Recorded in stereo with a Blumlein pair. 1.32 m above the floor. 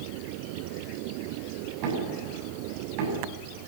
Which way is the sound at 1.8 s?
45° right.